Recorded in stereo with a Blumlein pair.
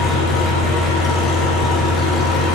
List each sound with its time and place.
0.0 s an engine running: 15° left, 3 m